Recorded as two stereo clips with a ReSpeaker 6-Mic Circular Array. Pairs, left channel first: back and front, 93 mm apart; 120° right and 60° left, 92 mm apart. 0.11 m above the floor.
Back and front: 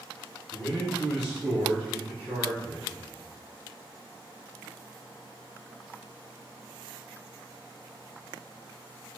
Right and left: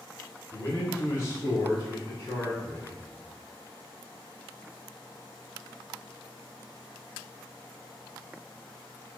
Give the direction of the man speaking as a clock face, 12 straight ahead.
3 o'clock.